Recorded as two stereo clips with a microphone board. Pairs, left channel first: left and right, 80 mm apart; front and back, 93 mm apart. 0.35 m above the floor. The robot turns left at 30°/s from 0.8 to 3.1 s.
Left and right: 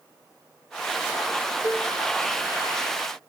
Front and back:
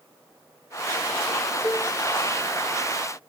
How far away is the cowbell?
About 2.5 m.